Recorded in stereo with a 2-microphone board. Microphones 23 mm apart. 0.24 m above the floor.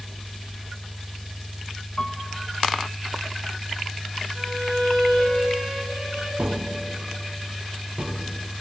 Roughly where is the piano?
Left.